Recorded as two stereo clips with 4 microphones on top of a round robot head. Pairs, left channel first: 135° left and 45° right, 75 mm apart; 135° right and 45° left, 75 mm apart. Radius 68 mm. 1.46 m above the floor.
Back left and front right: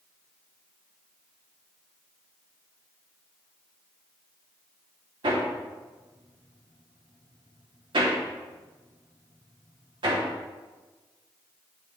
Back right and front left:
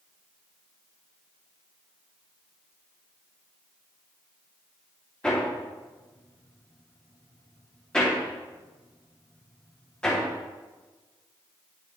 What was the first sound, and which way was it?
Hammering, 55° right.